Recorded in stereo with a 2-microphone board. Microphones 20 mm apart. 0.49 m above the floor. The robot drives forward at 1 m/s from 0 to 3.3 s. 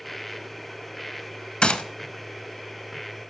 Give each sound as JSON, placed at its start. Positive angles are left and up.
{"t": 1.6, "sound": "a gunshot", "side_deg": 50, "distance_m": 0.7}